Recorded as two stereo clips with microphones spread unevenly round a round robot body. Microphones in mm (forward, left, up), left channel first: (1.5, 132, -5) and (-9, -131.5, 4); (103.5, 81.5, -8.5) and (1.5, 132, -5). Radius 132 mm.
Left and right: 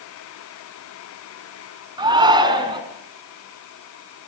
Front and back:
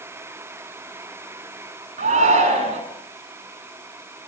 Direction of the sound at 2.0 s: 165° right.